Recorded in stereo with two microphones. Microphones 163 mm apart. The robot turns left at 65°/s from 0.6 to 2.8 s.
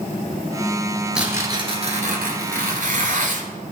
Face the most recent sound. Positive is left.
turn(degrees=-110)